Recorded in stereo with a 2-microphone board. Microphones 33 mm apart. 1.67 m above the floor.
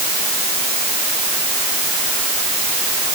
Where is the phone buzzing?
I don't hear a phone buzzing.